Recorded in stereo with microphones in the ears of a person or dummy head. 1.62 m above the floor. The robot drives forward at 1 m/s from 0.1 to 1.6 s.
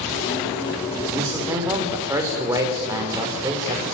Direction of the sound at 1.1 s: 20° right (ahead or behind).